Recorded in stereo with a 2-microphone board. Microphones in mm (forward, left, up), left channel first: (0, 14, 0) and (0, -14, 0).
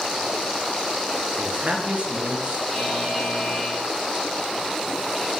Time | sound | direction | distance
1.4 | a man speaking | 50° right (ahead or behind) | 2.5 m
2.7 | a buzzer | centre (ahead or behind) | 2.5 m